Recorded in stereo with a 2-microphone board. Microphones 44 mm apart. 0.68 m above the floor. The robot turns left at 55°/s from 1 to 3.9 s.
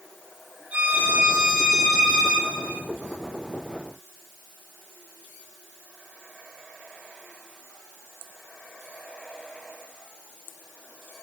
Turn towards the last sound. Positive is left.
turn(degrees=50)